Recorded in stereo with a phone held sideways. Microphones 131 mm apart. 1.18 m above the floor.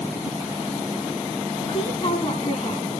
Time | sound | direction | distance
1.6 | a woman speaking | 55° left (ahead or behind) | 8 m